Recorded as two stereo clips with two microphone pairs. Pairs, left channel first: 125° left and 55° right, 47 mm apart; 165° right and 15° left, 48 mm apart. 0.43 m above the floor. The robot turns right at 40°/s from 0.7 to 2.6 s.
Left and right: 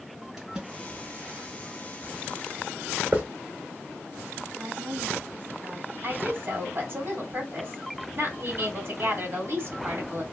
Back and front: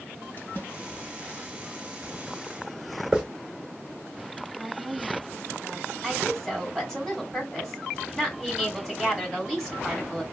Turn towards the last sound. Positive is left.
turn(degrees=-75)